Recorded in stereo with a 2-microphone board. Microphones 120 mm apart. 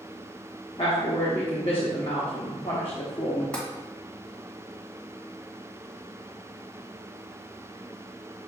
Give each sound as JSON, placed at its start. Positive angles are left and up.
{"t": 0.8, "sound": "a woman speaking", "side_deg": 50, "distance_m": 0.7}
{"t": 3.5, "sound": "tapping", "side_deg": 10, "distance_m": 1.4}